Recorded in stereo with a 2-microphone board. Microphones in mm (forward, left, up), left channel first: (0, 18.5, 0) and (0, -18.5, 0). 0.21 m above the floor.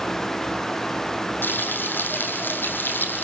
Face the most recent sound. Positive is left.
turn(degrees=70)  # may be behind; listen again after turning